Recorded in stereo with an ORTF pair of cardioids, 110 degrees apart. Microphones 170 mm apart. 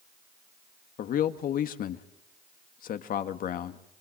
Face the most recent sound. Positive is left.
turn(degrees=60)